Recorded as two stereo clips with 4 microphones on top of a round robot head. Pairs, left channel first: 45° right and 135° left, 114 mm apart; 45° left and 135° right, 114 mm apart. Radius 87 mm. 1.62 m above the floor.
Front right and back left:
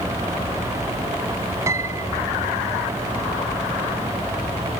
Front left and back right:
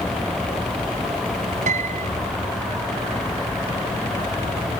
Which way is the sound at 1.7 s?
155° right.